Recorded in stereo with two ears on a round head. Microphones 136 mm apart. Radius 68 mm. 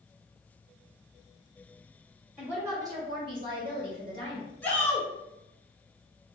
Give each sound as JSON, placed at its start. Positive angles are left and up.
{"t": 2.4, "sound": "a woman speaking", "side_deg": -10, "distance_m": 0.8}
{"t": 4.6, "sound": "a shout", "side_deg": 10, "distance_m": 0.7}